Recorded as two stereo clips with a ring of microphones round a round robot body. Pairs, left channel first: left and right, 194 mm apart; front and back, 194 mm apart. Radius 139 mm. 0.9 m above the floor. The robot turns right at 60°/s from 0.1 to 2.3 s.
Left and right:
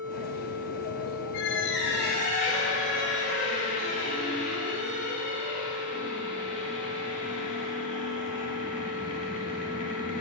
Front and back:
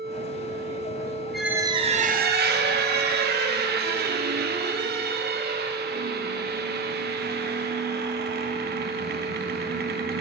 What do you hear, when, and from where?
1.3 s a squeak: 90° left, 0.6 m; by 10.2 s 145° left, 0.6 m